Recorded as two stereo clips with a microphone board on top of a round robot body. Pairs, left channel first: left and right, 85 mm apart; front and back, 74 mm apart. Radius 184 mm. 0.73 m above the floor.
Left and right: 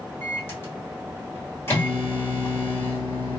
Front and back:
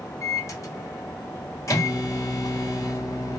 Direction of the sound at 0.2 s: 30° left.